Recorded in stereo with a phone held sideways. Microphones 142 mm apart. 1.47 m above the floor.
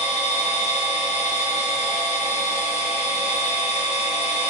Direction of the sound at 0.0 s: 50° left (ahead or behind).